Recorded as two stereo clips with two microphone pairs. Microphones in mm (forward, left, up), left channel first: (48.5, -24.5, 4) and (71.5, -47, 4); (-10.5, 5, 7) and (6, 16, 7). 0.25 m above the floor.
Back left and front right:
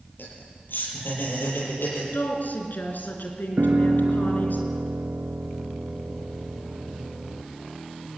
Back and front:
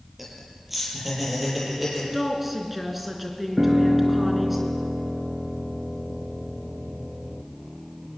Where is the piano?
25° right, 1.1 m.